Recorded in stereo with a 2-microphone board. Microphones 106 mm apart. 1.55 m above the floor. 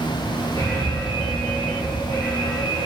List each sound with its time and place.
0.6 s an alarm: 45° left (ahead or behind), 3.5 m